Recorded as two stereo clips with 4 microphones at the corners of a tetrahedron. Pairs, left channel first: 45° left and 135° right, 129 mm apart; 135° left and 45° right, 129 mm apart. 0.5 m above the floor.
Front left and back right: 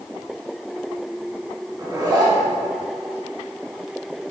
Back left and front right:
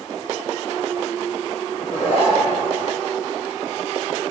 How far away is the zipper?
About 2.0 m.